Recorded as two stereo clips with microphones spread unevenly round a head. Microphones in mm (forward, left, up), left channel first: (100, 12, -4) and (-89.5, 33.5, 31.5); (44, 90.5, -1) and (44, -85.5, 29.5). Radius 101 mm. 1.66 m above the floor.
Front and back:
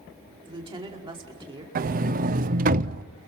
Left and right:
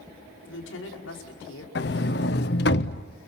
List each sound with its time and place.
0.5 s a woman speaking: 110° left, 5 m
1.8 s a sliding door: 130° left, 0.7 m